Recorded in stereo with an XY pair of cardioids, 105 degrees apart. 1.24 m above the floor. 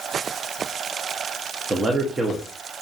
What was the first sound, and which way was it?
A man speaking, 30° right.